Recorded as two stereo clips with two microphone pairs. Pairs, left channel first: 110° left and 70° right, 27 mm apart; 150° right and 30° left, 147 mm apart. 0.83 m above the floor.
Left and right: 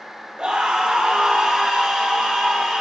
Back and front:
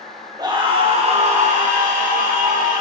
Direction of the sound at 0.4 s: 25° right.